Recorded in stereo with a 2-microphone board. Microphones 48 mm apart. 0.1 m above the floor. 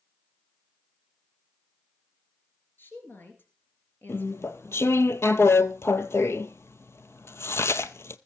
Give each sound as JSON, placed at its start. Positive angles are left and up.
{"t": 2.8, "sound": "a woman speaking", "side_deg": 45, "distance_m": 2.0}
{"t": 4.1, "sound": "chewing", "side_deg": 65, "distance_m": 0.6}